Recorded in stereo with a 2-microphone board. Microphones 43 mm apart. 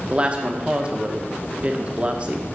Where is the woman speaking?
30° right (ahead or behind), 1.1 m.